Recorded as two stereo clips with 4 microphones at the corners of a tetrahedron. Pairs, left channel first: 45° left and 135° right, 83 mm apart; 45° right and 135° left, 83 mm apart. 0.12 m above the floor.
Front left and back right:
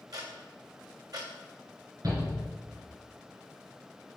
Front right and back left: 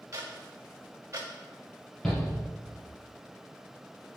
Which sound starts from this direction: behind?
Ticking, at 0.1 s.